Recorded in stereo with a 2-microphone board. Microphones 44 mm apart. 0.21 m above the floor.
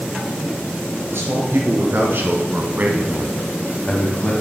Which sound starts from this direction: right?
A man speaking, at 1.1 s.